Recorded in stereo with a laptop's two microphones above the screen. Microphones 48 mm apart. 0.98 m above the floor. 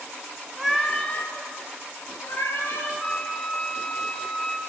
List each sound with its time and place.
0.6 s a cat meowing: 5° right (ahead or behind), 0.6 m; by 2.9 s 70° left (ahead or behind), 1.8 m
3.0 s a flute: 5° left (ahead or behind), 1.6 m